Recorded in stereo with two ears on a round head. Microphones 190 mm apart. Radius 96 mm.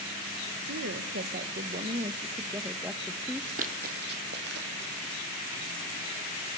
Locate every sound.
0.7 s a woman speaking: 60° right (ahead or behind), 1.2 m; by 3.6 s 5° left (ahead or behind), 1.5 m
3.6 s running footsteps: 40° right (ahead or behind), 2 m; by 5.2 s 60° right (ahead or behind), 3.5 m